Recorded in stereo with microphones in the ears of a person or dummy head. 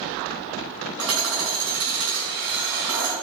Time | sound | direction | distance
1.0 | hammering | 80° right | 6 m